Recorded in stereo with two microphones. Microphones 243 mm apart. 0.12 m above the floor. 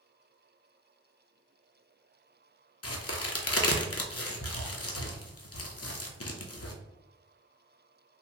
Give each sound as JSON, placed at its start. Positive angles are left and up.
{"t": 2.8, "sound": "a crack", "side_deg": 70, "distance_m": 0.5}